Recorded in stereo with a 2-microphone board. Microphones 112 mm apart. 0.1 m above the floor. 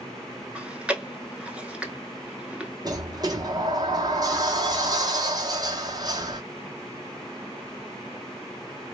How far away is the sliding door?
About 0.8 m.